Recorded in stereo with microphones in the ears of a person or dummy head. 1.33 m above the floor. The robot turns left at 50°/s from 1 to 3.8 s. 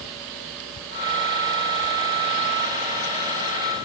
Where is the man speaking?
No man speaking in this recording.